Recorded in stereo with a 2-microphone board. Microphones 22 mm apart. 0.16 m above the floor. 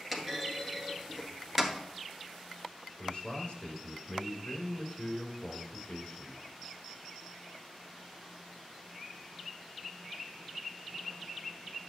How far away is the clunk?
About 1.5 m.